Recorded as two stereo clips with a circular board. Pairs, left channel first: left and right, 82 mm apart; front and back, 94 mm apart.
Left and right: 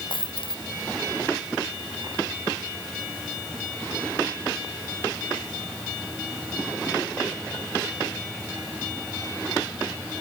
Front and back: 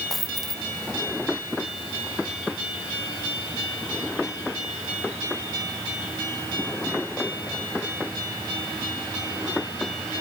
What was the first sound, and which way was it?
A dropped coin, 90° left.